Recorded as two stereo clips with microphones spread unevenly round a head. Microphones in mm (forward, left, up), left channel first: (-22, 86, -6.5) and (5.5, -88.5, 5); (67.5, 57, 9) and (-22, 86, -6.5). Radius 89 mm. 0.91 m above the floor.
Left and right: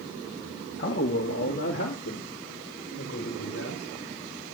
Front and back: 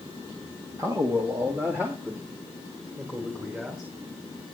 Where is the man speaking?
110° left, 1.6 m; by 3.9 s 85° left, 4 m.